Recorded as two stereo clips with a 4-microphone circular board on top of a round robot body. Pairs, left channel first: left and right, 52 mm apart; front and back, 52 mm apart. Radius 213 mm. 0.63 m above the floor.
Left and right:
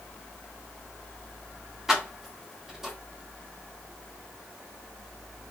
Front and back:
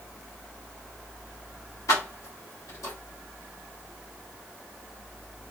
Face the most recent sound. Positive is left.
turn(degrees=-10)